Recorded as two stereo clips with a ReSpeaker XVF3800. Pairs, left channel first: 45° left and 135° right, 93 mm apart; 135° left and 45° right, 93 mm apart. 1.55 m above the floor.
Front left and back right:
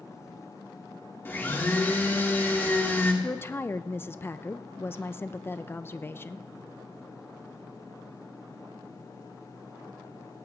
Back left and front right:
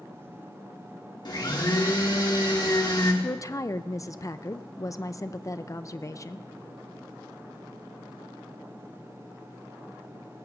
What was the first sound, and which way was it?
A blender, 105° left.